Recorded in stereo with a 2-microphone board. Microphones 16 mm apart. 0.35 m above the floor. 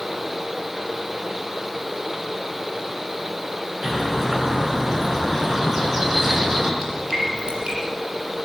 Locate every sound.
3.8 s a bird: 20° right (ahead or behind), 4.5 m
6.8 s dripping: 70° right (ahead or behind), 6.5 m